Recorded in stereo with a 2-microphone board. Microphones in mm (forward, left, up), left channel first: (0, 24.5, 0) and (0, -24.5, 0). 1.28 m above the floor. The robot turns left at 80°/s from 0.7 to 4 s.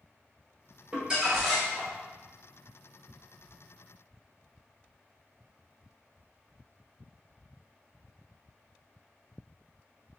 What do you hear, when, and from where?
0.9 s crumpling: 140° right, 1.2 m; by 1.9 s 145° left, 1.2 m